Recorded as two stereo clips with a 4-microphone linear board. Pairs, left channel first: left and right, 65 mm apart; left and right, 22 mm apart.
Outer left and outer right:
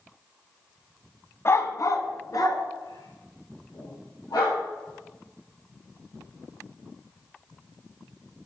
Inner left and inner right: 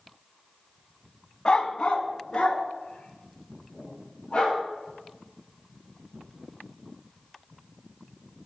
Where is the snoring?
No snoring in this recording.